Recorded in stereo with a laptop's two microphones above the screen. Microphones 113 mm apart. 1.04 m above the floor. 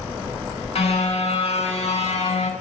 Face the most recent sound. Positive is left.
turn(degrees=80)